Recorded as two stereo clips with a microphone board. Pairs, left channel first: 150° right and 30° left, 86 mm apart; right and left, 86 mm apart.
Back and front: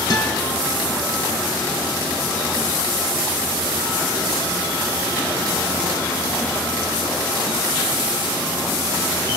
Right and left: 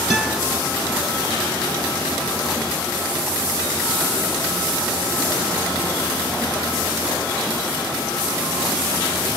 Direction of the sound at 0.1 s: 175° left.